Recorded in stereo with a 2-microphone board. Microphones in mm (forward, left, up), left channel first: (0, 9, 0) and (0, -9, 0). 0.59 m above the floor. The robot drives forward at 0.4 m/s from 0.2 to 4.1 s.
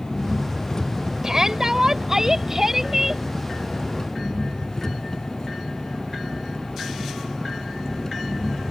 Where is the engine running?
45° left (ahead or behind); by 8.7 s 35° left (ahead or behind).